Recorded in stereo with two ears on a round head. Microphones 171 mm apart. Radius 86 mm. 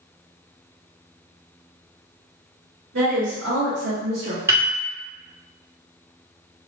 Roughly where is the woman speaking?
Right.